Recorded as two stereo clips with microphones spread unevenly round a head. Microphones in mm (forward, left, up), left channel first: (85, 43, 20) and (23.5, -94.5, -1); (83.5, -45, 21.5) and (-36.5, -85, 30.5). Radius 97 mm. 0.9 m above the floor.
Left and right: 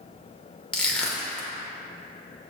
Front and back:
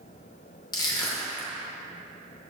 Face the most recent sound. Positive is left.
turn(degrees=10)